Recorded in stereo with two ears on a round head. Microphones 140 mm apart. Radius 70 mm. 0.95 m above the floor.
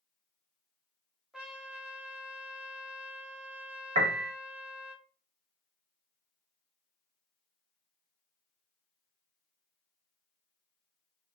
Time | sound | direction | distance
1.3 | a trumpet | 5° right (ahead or behind) | 0.6 m
4.0 | a piano | 45° right (ahead or behind) | 0.6 m